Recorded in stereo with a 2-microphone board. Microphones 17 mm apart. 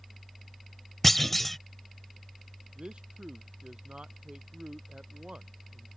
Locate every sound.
1.0 s a clunk: 10° left (ahead or behind)
2.8 s a man speaking: 75° right (ahead or behind)